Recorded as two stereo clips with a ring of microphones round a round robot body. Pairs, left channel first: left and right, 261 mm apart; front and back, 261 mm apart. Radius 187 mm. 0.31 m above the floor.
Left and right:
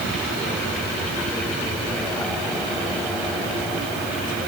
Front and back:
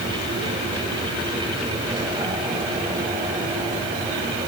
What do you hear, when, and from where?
Only background noise.